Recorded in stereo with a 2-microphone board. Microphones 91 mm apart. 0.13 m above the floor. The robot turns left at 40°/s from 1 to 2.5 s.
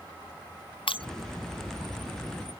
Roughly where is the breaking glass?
Left.